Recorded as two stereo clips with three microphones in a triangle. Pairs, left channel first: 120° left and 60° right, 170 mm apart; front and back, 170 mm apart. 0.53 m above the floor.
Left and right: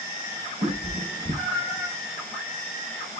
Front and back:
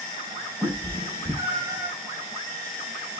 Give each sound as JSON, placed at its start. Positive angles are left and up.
{"t": 0.6, "sound": "a cat meowing", "azimuth_deg": -105, "distance_m": 4.0}